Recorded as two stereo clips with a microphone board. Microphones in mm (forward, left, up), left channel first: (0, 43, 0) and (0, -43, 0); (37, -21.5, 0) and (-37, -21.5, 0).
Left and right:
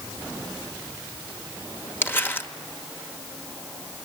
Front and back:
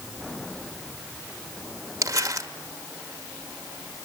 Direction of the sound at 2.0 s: 150° left.